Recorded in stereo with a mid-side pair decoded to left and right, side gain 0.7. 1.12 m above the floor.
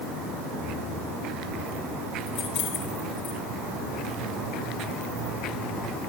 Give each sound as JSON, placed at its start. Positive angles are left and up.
{"t": 2.3, "sound": "keys jangling", "azimuth_deg": 55, "distance_m": 5.5}